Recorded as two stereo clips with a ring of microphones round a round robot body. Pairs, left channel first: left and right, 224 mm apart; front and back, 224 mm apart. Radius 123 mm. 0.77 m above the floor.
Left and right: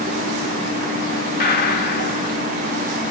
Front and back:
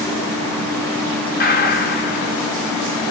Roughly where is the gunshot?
Ahead left.